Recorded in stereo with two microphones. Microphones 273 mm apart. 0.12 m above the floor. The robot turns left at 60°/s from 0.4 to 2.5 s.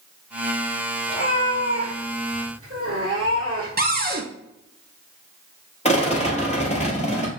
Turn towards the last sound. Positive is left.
turn(degrees=25)  # may be behind; listen again after turning